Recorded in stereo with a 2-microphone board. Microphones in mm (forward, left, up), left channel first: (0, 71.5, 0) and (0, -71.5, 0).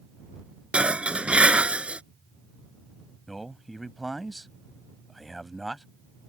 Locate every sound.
0.7 s dishes clattering: 10° right (ahead or behind)
3.3 s a man speaking: centre (ahead or behind)